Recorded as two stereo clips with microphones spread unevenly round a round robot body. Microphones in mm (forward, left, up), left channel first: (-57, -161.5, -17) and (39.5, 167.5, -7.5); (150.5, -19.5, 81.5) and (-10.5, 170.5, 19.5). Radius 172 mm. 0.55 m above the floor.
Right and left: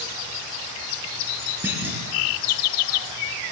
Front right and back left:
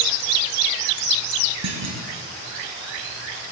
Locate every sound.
1.6 s a clunk: 160° left, 6 m